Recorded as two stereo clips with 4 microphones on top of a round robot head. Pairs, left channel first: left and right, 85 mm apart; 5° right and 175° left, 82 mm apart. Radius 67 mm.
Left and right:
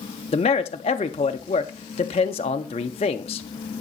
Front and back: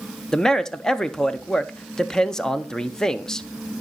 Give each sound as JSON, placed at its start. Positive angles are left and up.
{"t": 0.3, "sound": "a man speaking", "azimuth_deg": 75, "distance_m": 0.5}